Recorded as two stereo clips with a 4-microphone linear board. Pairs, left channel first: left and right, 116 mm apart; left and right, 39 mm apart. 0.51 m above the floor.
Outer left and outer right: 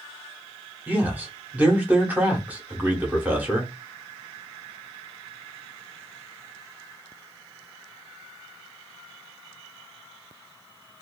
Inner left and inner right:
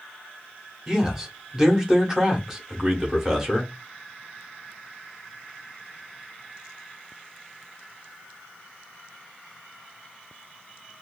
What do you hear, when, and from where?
0.9 s a man speaking: 15° right (ahead or behind), 0.8 m